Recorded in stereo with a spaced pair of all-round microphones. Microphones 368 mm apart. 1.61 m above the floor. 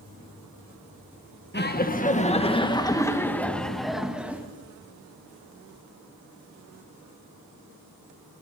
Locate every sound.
1.5 s laughter: 30° left (ahead or behind), 1.9 m; by 4.4 s 5° right (ahead or behind), 2.5 m